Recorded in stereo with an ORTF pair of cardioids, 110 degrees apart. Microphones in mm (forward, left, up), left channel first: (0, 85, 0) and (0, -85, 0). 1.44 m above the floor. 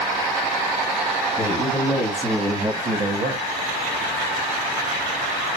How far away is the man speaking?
About 1.2 m.